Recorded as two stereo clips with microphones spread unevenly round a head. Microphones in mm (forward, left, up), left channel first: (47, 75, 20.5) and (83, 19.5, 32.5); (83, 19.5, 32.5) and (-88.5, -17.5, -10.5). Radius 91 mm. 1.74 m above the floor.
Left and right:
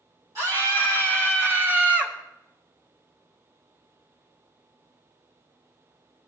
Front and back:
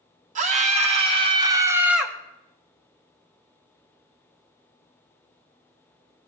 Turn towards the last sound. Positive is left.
turn(degrees=-45)